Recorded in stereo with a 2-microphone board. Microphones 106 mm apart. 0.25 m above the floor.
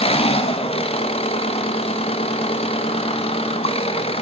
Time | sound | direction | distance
0.0 | an engine running | 60° left (ahead or behind) | 1.1 m